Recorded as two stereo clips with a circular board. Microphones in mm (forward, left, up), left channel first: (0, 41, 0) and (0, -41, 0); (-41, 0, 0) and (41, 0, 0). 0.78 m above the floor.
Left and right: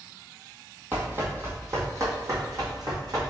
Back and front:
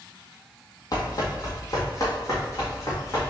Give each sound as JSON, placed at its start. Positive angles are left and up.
{"t": 0.9, "sound": "running footsteps", "azimuth_deg": -150, "distance_m": 1.3}